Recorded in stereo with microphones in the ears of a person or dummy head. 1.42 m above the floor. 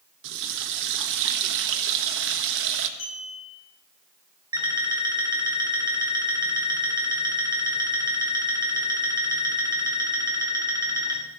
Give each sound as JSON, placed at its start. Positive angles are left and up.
{"t": 0.2, "sound": "a running tap", "side_deg": -70, "distance_m": 1.3}
{"t": 3.0, "sound": "a clink", "side_deg": 40, "distance_m": 9.0}
{"t": 4.5, "sound": "an alarm clock", "side_deg": -20, "distance_m": 2.5}